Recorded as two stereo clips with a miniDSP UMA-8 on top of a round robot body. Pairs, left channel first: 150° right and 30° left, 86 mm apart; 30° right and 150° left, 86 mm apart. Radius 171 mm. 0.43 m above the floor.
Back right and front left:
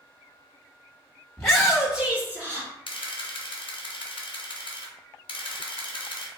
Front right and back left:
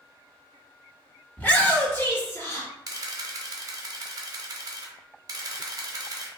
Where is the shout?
80° right, 1.4 m; by 2.7 s straight ahead, 1.5 m.